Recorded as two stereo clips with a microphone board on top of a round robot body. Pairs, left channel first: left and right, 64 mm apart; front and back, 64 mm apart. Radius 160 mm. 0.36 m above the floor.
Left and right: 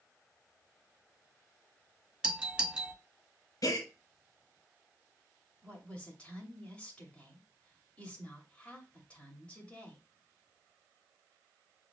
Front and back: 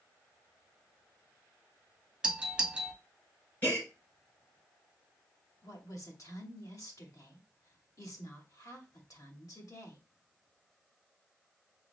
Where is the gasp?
60° left, 3 m.